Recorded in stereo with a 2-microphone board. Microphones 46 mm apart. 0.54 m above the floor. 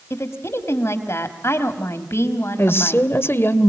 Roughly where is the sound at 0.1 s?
Left.